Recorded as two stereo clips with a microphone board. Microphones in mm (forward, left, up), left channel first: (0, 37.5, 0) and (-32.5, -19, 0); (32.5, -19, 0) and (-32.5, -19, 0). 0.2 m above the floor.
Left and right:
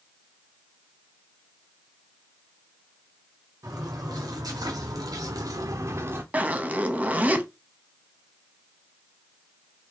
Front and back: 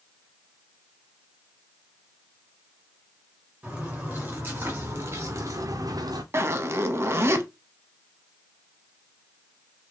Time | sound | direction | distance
3.6 | footsteps | 110° right | 2.5 m
6.3 | a zipper | 175° right | 0.7 m